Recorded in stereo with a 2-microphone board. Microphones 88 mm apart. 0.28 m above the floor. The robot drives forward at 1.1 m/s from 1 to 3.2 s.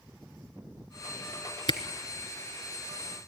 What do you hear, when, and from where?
1.7 s a camera shutter: 60° left (ahead or behind), 1.1 m; by 1.8 s 55° left (ahead or behind), 1.1 m